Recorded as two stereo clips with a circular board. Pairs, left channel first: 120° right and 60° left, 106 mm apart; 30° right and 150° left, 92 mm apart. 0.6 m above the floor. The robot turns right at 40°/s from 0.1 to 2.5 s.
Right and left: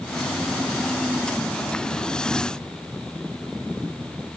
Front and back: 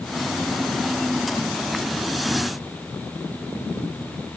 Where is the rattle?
I don't hear a rattle.